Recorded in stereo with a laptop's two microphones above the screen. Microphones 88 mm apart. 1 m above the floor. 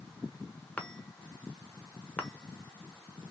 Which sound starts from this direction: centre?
A chime, at 0.8 s.